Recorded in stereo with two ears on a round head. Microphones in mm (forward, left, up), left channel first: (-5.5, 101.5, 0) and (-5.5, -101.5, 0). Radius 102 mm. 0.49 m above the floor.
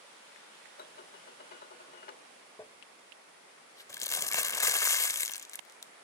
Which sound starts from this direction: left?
Dishes clattering, at 0.8 s.